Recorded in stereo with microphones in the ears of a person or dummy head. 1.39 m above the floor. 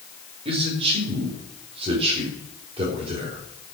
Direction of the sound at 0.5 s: 35° right (ahead or behind).